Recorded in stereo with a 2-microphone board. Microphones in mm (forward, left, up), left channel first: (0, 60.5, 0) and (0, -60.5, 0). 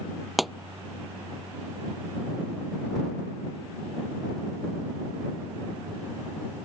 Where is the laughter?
I don't hear laughter.